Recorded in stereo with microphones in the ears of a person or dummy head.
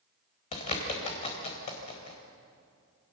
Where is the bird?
40° left (ahead or behind), 4 m.